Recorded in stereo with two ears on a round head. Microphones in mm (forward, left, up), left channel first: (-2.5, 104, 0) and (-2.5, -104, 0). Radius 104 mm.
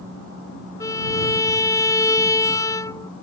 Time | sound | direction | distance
0.8 | a violin | 15° left (ahead or behind) | ?